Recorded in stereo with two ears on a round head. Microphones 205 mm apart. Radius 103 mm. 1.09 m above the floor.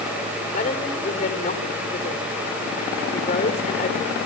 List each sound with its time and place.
0.5 s a woman speaking: 30° left (ahead or behind), 3.5 m